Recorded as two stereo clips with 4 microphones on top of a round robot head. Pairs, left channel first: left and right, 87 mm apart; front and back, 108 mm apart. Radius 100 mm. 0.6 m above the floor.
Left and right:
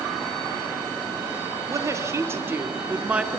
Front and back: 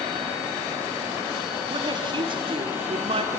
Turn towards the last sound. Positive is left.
turn(degrees=-165)